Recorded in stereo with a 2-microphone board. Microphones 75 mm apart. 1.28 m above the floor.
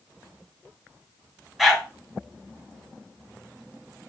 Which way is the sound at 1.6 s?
Centre (ahead or behind).